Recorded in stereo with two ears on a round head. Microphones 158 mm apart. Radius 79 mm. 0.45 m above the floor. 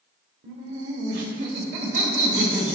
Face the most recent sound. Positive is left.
turn(degrees=-45)  # may be behind; listen again after turning